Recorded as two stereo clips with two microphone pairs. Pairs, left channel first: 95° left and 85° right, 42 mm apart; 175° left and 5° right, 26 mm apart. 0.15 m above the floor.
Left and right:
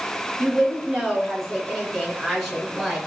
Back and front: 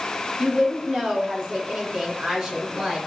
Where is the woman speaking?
15° left, 1.8 m.